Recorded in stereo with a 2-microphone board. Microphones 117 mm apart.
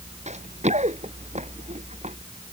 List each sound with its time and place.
0.3 s running footsteps: 75° right (ahead or behind); by 2.2 s 70° right (ahead or behind)